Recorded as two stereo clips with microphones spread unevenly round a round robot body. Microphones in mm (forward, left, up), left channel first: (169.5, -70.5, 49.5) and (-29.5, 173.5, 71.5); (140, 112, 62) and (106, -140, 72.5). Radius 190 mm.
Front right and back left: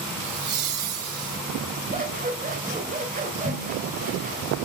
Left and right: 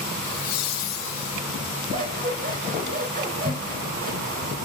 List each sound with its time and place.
0.2 s laughter: 120° left, 3 m; by 1.4 s 95° left, 2.5 m
1.9 s scissors: 160° right, 3 m